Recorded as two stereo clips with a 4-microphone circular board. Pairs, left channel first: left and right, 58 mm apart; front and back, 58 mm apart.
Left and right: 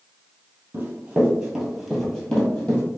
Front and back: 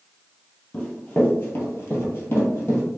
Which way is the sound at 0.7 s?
60° right.